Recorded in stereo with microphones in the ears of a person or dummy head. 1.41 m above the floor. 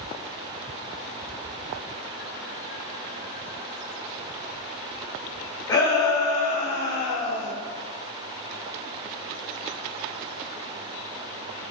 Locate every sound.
5.7 s a shout: 20° left (ahead or behind), 1.2 m; by 7.5 s 75° left (ahead or behind), 1.1 m